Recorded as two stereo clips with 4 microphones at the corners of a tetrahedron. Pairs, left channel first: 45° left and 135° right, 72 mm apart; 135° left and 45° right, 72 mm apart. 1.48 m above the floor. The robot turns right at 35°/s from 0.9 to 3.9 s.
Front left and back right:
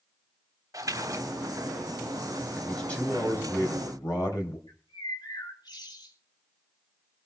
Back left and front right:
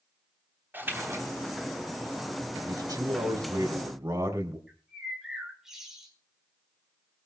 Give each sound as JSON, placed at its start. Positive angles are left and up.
{"t": 0.7, "sound": "a splash", "azimuth_deg": -105, "distance_m": 3.5}
{"t": 2.6, "sound": "a man speaking", "azimuth_deg": -40, "distance_m": 3.5}
{"t": 4.7, "sound": "a bird", "azimuth_deg": 40, "distance_m": 5.0}